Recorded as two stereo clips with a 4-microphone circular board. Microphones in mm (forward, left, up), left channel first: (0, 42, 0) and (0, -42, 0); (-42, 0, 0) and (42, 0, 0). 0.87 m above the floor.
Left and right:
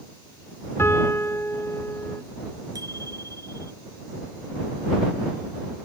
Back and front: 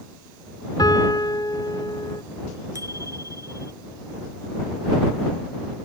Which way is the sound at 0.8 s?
145° left.